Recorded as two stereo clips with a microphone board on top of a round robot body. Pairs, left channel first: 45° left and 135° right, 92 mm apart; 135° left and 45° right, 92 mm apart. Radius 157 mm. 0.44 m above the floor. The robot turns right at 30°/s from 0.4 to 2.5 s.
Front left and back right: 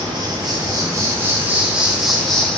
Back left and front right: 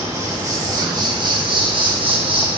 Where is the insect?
100° right, 1.5 m; by 2.6 s 35° right, 1.5 m.